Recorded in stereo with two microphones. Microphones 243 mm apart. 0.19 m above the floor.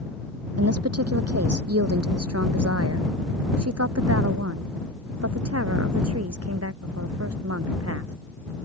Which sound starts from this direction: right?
A woman speaking, at 0.6 s.